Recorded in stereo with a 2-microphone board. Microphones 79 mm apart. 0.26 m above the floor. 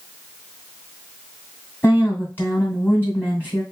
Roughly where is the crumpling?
I don't hear crumpling.